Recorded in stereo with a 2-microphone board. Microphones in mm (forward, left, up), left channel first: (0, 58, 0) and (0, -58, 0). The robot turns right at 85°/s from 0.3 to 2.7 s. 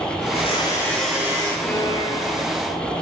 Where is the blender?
115° left, 9 m; by 1.5 s 140° right, 9 m.